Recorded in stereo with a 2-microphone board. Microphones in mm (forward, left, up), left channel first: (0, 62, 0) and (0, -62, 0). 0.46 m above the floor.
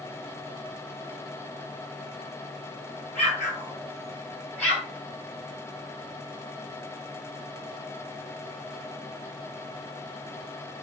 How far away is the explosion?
About 2.5 m.